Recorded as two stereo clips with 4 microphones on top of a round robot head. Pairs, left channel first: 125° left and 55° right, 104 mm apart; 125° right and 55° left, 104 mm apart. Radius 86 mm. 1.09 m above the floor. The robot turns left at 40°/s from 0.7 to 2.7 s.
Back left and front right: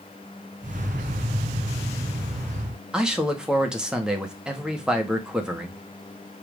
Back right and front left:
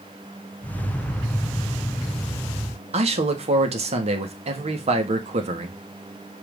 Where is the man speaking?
30° left, 1.7 m.